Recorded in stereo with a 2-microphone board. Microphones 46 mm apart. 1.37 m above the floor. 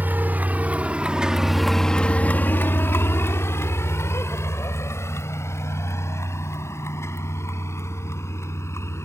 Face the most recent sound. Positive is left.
turn(degrees=80)